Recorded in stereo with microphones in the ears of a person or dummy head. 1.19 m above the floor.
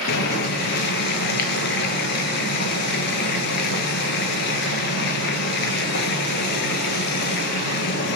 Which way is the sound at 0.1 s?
55° left (ahead or behind).